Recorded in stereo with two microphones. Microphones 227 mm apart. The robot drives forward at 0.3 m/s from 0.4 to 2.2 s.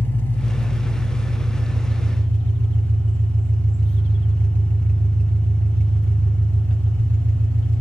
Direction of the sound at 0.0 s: 10° left (ahead or behind).